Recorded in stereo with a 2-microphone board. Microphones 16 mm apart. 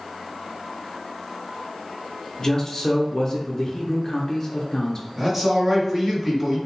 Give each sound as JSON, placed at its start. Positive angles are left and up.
{"t": 2.4, "sound": "a man speaking", "side_deg": 35, "distance_m": 0.5}
{"t": 5.2, "sound": "a man speaking", "side_deg": -35, "distance_m": 1.6}